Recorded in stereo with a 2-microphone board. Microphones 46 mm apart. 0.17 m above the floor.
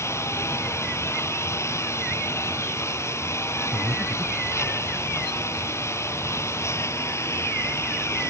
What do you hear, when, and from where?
0.0 s a lawn mower: 85° left
3.7 s breathing: 70° right (ahead or behind)